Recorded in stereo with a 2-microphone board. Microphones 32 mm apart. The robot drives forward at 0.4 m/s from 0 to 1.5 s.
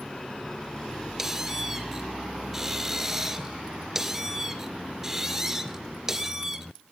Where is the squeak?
15° right (ahead or behind), 2 m.